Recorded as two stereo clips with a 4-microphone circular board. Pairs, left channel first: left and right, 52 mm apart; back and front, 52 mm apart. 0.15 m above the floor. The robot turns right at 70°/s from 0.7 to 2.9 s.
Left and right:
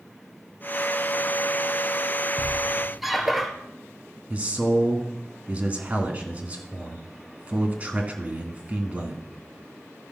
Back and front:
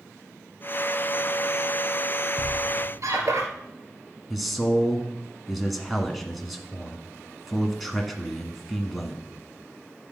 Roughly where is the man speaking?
Right.